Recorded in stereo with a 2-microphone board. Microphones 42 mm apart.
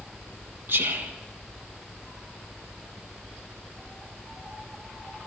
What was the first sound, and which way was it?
Whispering, 60° right (ahead or behind).